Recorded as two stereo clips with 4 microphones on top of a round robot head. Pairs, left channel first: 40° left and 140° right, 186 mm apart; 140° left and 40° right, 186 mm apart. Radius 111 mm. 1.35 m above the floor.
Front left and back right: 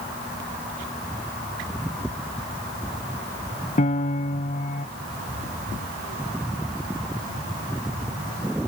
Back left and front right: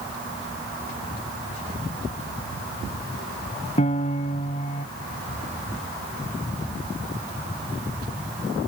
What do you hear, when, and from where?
3.8 s a piano: 85° left